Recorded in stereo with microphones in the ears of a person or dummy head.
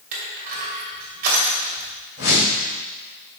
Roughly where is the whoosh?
Left.